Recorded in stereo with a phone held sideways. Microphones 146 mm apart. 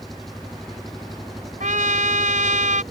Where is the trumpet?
60° right (ahead or behind).